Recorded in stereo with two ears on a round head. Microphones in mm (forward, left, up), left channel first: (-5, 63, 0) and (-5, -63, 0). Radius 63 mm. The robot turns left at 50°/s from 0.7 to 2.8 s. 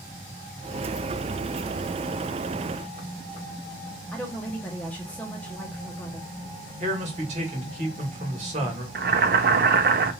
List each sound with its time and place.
4.1 s a woman speaking: 10° left (ahead or behind), 0.9 m
6.8 s a man speaking: 50° right (ahead or behind), 1.5 m
8.9 s boiling: 70° right (ahead or behind), 0.5 m